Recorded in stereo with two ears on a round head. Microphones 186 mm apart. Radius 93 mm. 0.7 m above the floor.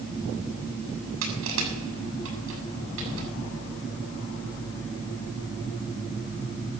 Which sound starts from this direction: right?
Crushing, at 1.2 s.